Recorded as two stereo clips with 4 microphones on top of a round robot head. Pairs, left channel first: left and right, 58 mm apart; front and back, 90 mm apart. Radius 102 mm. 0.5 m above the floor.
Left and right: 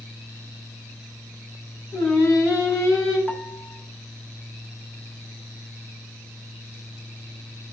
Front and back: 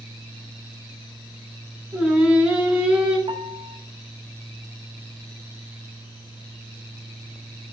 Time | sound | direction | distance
1.9 | singing | 100° left | 3 m
3.3 | a piano | 165° left | 1.1 m